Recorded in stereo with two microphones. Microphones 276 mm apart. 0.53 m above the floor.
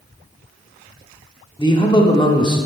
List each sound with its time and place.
1.6 s a man speaking: 20° left (ahead or behind), 1.0 m